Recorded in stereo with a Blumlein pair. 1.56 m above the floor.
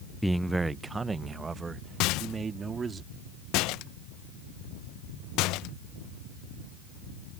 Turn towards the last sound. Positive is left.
turn(degrees=40)